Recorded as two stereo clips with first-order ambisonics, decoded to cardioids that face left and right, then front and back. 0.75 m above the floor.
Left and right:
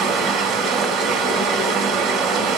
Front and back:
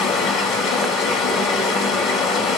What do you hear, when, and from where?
0.0 s running water: 40° right, 2.5 m